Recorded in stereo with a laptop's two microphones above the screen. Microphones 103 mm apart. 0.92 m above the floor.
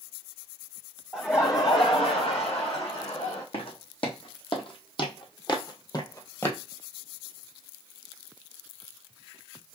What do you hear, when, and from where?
1.1 s laughter: 5° left (ahead or behind), 0.7 m; by 3.4 s 75° left (ahead or behind), 1.9 m
3.5 s footsteps: 65° left (ahead or behind), 2 m; by 6.6 s 25° left (ahead or behind), 1.4 m